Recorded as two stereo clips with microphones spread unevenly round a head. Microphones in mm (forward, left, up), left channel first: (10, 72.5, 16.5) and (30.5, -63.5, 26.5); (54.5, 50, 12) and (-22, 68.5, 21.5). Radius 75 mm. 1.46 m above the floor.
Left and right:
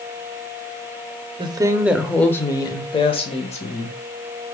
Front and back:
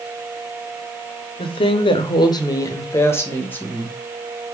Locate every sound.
1.4 s a woman speaking: 30° right, 0.7 m; by 4.0 s 55° left, 1.6 m